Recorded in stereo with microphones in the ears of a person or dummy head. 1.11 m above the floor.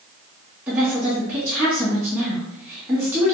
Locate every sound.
0.7 s a woman speaking: 10° right (ahead or behind), 2 m